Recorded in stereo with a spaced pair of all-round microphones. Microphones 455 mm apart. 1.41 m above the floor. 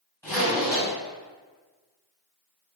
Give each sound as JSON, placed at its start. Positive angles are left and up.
{"t": 0.2, "sound": "a zipper", "side_deg": 5, "distance_m": 1.9}